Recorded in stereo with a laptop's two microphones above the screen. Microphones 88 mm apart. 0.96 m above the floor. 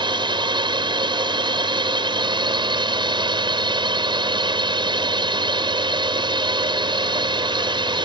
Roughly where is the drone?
Right.